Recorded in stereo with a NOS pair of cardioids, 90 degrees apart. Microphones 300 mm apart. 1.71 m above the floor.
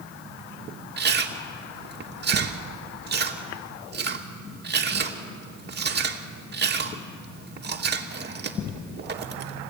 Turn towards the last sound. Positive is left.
turn(degrees=-35)